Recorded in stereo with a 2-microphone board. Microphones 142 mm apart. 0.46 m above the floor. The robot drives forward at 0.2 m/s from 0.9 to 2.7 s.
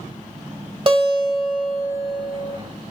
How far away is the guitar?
About 0.9 m.